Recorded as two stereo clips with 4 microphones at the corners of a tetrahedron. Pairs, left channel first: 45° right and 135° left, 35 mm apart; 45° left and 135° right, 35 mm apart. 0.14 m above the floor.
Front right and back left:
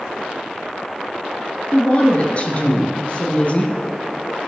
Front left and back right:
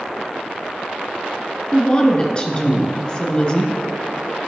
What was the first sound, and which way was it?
A woman speaking, 10° right.